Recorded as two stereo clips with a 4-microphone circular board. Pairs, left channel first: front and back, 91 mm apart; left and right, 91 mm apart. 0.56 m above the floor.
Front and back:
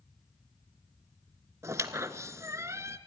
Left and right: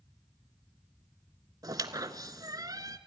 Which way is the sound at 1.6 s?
130° right.